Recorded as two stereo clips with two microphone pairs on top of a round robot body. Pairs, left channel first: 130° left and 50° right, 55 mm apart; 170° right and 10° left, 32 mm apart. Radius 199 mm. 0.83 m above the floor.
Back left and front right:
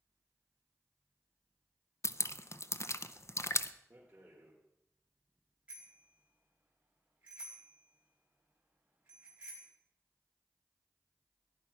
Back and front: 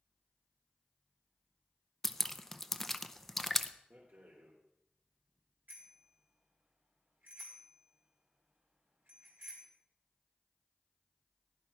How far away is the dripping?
About 0.8 m.